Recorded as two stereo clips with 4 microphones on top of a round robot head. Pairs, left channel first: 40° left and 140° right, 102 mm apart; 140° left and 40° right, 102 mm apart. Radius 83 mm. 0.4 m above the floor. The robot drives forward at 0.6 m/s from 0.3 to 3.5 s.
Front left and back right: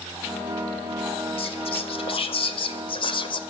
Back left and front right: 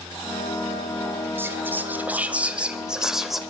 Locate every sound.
1.4 s whispering: 30° left, 3 m; by 3.4 s 50° left, 2 m